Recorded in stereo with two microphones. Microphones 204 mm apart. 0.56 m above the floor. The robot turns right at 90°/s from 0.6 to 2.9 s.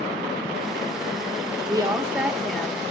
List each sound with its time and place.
1.7 s a woman speaking: 20° right (ahead or behind), 0.9 m; by 2.8 s 10° left (ahead or behind), 0.9 m